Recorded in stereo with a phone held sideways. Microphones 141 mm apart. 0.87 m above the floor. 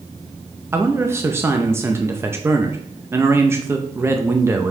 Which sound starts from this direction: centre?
A man speaking, at 0.7 s.